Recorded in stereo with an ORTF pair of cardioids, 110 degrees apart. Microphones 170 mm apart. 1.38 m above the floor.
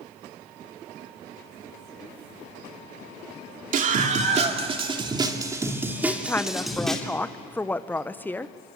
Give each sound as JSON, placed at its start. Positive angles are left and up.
{"t": 3.7, "sound": "a scream", "azimuth_deg": -50, "distance_m": 2.5}
{"t": 6.0, "sound": "a woman speaking", "azimuth_deg": 10, "distance_m": 0.9}